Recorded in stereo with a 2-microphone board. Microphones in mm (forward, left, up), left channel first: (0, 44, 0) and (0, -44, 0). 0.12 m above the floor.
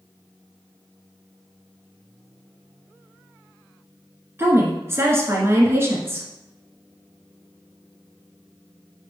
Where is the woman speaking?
30° right (ahead or behind), 1.5 m.